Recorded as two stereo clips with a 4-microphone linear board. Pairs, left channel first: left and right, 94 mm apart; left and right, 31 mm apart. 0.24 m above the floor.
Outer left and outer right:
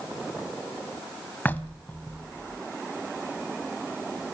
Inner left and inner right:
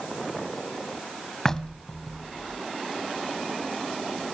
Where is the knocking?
20° left (ahead or behind), 1.3 m.